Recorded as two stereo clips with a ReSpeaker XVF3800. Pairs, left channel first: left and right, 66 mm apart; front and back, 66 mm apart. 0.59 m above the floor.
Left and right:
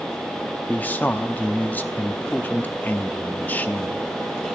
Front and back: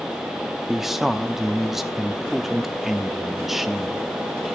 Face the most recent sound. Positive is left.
turn(degrees=100)